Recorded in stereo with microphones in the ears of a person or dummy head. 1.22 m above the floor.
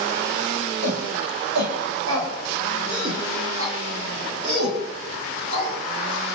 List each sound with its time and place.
0.8 s a shout: 65° right (ahead or behind), 7.5 m; by 5.8 s 80° right, 11.5 m